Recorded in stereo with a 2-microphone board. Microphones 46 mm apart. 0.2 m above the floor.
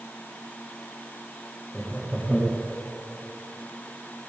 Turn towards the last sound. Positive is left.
turn(degrees=-5)  # may be behind; listen again after turning